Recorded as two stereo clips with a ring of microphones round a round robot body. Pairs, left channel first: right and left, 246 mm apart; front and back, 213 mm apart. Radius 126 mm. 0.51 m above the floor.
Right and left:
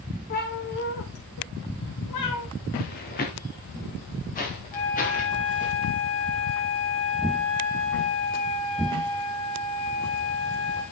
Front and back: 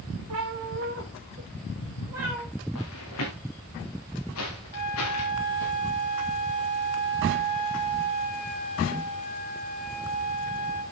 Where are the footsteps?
40° right, 2.5 m; by 5.7 s 30° right, 5 m.